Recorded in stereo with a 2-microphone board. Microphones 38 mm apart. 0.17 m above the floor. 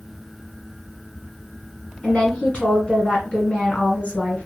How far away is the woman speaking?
About 1.7 m.